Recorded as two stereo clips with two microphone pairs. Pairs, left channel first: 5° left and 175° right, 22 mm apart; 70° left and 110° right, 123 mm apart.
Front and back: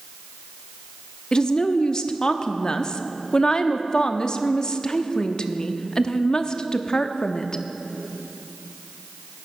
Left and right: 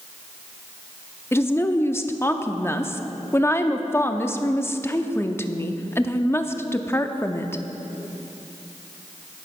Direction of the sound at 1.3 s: 20° left.